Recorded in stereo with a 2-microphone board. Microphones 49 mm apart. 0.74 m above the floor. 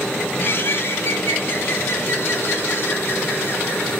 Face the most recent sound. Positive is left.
turn(degrees=50)  # may be behind; listen again after turning